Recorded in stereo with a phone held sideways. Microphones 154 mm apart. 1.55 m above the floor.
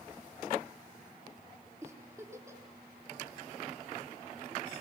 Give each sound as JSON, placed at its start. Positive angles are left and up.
{"t": 1.8, "sound": "a giggle", "side_deg": -20, "distance_m": 4.0}